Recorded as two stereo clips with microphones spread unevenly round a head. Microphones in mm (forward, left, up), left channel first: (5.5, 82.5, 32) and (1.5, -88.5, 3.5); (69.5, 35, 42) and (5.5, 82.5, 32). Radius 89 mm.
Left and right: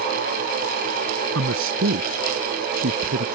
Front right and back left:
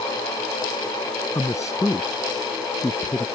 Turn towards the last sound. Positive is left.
turn(degrees=-105)